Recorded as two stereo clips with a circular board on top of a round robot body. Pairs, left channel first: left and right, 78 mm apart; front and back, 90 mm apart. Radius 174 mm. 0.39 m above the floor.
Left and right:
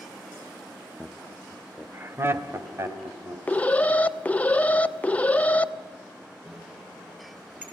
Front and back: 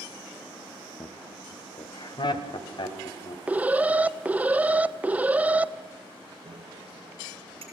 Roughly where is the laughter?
Ahead.